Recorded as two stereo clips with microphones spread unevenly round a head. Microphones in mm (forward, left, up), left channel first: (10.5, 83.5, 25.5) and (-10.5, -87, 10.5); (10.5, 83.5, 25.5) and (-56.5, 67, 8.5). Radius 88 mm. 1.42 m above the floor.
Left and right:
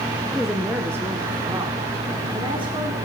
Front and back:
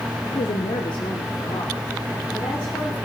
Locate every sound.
0.3 s a woman speaking: 5° right, 0.7 m; by 3.0 s 35° right, 2.5 m